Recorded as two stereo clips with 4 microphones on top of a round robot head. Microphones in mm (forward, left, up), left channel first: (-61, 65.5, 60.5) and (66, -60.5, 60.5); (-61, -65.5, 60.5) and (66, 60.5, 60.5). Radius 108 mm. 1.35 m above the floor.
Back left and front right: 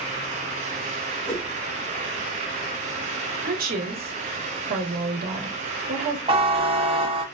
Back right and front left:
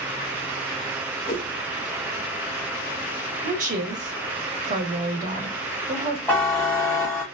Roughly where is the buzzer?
Right.